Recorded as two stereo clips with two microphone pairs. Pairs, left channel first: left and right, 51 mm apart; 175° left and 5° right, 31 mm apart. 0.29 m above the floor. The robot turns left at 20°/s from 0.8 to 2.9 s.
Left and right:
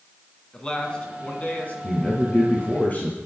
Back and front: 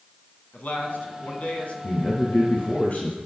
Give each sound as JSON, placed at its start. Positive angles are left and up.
{"t": 0.5, "sound": "a man speaking", "azimuth_deg": 160, "distance_m": 2.5}
{"t": 1.8, "sound": "a man speaking", "azimuth_deg": 155, "distance_m": 2.5}